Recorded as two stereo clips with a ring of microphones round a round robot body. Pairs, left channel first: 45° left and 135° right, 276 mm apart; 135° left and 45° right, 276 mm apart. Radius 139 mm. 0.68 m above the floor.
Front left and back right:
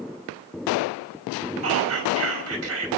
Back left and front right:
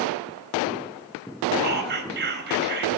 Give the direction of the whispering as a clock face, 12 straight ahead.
3 o'clock.